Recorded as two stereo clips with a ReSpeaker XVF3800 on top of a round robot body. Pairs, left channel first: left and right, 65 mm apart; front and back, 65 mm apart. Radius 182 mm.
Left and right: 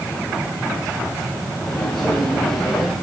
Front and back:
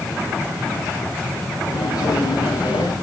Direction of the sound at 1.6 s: 10° left.